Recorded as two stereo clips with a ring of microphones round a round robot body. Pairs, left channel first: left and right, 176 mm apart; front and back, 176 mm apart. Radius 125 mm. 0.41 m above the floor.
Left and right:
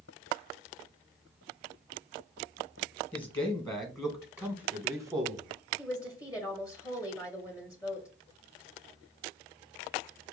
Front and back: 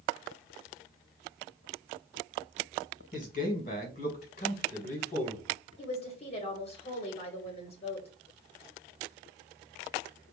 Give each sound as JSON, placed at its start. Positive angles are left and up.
{"t": 3.1, "sound": "a man speaking", "azimuth_deg": 30, "distance_m": 1.7}
{"t": 5.8, "sound": "a woman speaking", "azimuth_deg": 30, "distance_m": 1.3}